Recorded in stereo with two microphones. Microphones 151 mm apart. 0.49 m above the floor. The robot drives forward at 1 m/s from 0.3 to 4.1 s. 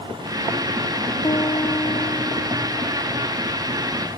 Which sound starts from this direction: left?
A piano, at 1.2 s.